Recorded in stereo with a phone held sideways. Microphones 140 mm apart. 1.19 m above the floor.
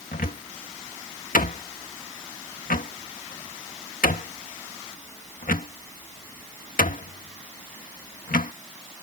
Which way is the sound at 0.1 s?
80° left.